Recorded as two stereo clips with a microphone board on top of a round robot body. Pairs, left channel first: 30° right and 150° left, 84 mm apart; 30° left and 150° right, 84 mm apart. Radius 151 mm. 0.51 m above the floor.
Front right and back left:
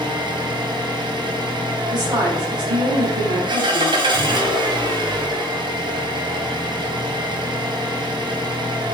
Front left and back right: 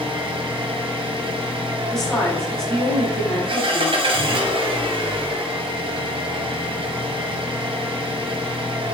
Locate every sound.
0.0 s an engine running: 175° right, 1.9 m
1.9 s a woman speaking: 115° left, 5.5 m